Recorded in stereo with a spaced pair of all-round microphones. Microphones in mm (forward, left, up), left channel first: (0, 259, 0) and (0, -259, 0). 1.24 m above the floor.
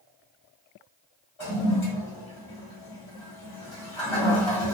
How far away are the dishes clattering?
No dishes clattering in this recording.